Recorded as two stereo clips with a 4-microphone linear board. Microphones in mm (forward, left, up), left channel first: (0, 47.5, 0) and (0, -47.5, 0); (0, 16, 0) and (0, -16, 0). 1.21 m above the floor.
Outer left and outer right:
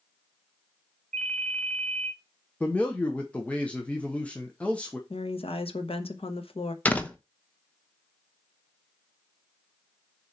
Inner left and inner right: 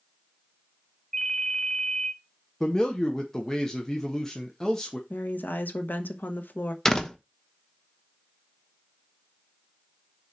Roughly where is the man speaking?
Centre.